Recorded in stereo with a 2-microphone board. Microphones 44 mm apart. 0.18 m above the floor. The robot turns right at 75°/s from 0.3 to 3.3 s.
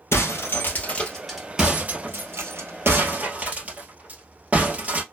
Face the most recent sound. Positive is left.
turn(degrees=-35)  # may be behind; listen again after turning